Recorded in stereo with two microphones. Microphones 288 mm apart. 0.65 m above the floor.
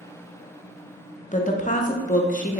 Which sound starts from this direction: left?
A woman speaking, at 1.3 s.